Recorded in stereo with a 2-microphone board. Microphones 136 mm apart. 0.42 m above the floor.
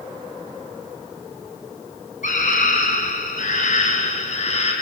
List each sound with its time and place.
2.2 s a scream: 70° left (ahead or behind), 3.5 m; by 4.7 s 55° left (ahead or behind), 3.5 m